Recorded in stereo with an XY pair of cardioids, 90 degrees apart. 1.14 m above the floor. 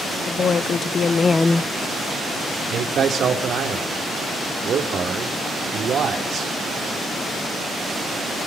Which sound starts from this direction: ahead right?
A man speaking, at 2.7 s.